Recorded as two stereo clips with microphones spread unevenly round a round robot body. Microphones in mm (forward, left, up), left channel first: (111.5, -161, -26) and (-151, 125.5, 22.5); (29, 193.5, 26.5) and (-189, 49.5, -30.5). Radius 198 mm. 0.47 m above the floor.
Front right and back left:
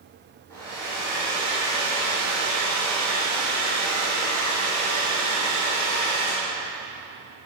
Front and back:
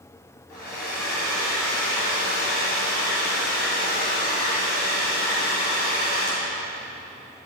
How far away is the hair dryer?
About 2.5 m.